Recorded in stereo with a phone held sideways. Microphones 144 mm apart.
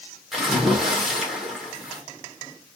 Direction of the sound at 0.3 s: Centre (ahead or behind).